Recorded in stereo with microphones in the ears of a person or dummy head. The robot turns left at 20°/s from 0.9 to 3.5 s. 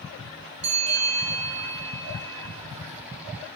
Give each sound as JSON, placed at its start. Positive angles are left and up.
{"t": 0.6, "sound": "a bell", "azimuth_deg": -35, "distance_m": 1.1}